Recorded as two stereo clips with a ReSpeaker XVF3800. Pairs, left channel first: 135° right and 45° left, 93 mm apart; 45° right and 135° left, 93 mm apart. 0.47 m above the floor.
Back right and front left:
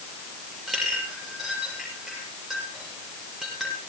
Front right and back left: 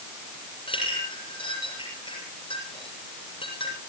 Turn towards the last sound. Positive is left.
turn(degrees=-45)